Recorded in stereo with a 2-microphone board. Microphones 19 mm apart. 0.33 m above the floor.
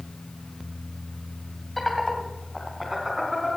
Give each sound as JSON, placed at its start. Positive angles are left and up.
{"t": 1.8, "sound": "laughter", "side_deg": 10, "distance_m": 1.7}